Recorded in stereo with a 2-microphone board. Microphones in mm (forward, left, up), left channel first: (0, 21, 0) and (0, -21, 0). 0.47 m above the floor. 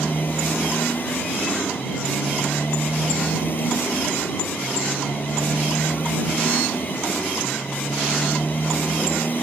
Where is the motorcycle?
50° left (ahead or behind).